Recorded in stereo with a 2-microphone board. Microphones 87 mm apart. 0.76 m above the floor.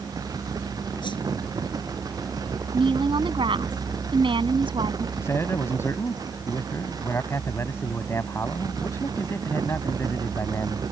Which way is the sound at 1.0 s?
65° left (ahead or behind).